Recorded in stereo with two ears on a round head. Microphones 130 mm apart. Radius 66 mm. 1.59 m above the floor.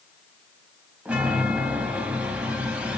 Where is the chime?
5° right (ahead or behind), 3 m.